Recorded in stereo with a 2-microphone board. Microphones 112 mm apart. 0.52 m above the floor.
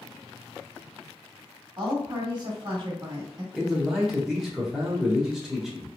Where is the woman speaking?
45° right (ahead or behind), 1.3 m.